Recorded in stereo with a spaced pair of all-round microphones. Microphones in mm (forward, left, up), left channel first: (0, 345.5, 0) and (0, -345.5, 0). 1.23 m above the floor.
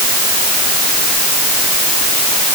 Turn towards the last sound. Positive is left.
No sound to turn to.